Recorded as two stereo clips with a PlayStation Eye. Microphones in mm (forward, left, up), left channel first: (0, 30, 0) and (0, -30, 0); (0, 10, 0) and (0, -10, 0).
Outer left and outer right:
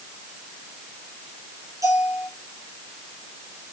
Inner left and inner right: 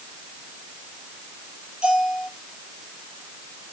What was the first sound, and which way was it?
A bell, 70° right (ahead or behind).